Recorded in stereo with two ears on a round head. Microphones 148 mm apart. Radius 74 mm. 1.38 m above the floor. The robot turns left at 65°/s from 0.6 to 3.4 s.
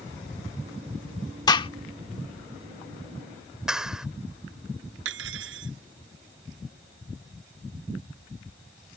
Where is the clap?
5° right (ahead or behind).